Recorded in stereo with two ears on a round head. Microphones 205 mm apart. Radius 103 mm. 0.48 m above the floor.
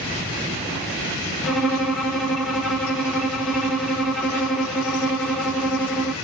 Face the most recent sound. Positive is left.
turn(degrees=0)  # may be behind; listen again after turning